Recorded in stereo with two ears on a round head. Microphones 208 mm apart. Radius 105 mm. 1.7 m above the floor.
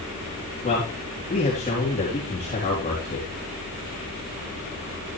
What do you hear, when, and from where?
0.6 s a man speaking: 30° left (ahead or behind), 4 m